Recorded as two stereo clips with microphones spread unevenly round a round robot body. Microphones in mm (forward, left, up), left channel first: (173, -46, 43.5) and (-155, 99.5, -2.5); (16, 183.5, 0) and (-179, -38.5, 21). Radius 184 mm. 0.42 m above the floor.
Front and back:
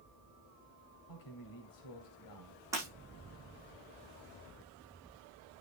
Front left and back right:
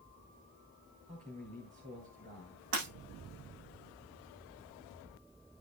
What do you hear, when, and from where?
1.1 s a man speaking: 60° right, 2.5 m
2.7 s breaking glass: 120° right, 8 m